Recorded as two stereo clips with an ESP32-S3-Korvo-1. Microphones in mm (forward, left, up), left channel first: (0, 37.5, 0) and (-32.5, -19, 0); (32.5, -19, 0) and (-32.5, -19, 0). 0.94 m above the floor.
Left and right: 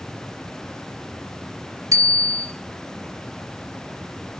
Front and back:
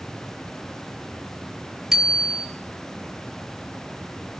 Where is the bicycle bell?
95° right, 2 m.